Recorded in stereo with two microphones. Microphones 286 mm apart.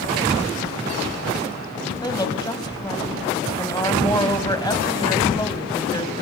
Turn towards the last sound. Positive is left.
turn(degrees=15)  # may be behind; listen again after turning